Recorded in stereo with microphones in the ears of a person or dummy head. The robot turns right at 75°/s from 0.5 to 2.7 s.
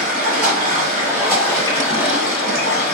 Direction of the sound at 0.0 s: 65° right.